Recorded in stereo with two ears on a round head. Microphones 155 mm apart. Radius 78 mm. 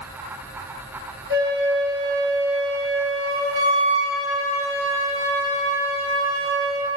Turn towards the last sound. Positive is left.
turn(degrees=-65)  # may be behind; listen again after turning